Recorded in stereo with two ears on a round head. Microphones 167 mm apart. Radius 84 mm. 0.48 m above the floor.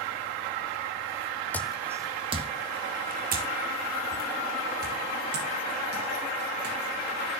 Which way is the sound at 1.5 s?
10° left (ahead or behind).